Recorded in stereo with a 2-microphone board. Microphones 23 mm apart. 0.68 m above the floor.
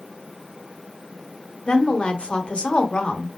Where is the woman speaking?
40° left (ahead or behind), 1.2 m.